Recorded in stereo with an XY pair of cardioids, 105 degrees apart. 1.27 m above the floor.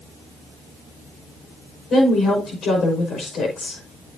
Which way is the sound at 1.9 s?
60° left.